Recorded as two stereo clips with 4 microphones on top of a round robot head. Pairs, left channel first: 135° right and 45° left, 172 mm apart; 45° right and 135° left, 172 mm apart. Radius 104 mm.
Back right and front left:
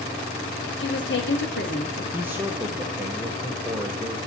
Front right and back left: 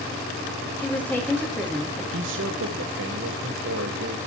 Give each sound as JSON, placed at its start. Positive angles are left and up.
{"t": 0.8, "sound": "a woman speaking", "azimuth_deg": -125, "distance_m": 3.0}
{"t": 2.1, "sound": "a man speaking", "azimuth_deg": 120, "distance_m": 0.8}